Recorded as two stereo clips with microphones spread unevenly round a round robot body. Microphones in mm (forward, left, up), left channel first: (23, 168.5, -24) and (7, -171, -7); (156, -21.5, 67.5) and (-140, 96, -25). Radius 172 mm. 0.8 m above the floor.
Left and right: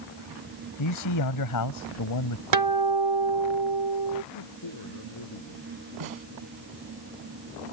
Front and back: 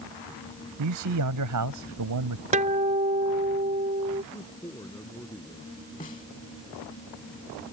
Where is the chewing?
No chewing in this recording.